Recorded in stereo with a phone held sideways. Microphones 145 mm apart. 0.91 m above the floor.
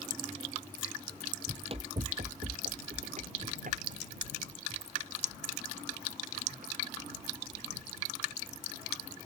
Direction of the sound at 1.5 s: 35° right (ahead or behind).